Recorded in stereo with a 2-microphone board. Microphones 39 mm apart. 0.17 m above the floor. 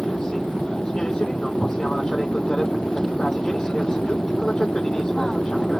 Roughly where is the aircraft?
Left.